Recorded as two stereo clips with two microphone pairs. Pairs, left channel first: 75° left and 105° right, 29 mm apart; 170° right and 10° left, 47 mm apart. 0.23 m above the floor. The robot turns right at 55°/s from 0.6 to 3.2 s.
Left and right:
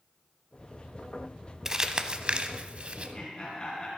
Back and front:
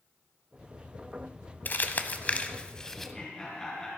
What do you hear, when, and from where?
1.6 s crumpling: 165° right, 0.8 m; by 3.1 s 85° right, 0.8 m
3.0 s laughter: 105° left, 3 m; by 3.9 s 120° left, 3 m